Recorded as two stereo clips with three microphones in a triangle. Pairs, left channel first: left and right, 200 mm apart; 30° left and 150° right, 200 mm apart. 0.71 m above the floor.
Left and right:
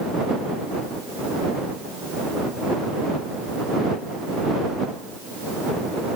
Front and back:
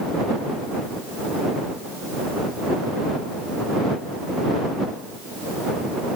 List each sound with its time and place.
Only background noise.